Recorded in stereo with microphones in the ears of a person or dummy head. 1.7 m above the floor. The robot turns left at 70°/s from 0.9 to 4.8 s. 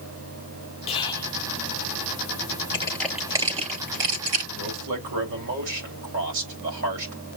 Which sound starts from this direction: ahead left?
Whispering, at 0.9 s.